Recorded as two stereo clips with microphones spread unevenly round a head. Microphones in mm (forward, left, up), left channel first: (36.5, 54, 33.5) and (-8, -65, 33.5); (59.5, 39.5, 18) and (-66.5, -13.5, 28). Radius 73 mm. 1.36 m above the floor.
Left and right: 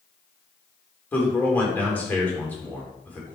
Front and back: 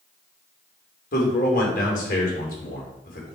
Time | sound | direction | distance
1.1 | a man speaking | 10° right | 3.5 m